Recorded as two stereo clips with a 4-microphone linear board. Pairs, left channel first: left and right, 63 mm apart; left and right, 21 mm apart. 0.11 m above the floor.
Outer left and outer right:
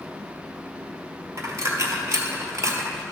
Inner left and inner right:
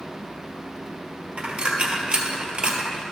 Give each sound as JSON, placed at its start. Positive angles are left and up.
{"t": 1.4, "sound": "a dropped coin", "side_deg": -55, "distance_m": 1.3}